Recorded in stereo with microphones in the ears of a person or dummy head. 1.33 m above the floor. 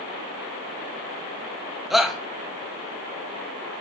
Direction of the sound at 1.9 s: Centre (ahead or behind).